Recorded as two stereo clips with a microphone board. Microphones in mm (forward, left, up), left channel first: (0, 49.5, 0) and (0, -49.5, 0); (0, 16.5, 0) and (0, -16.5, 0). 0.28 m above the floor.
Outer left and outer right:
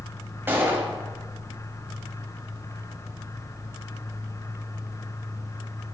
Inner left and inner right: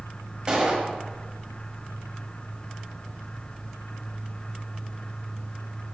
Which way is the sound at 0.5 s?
20° right (ahead or behind).